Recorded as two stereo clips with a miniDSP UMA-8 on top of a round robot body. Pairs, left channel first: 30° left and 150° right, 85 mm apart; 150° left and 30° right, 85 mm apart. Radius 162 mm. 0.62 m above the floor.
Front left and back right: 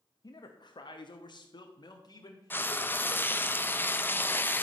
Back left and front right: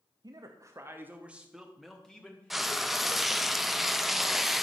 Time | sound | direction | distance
0.2 | a man speaking | 5° right | 1.1 m
2.5 | frying | 55° left | 0.9 m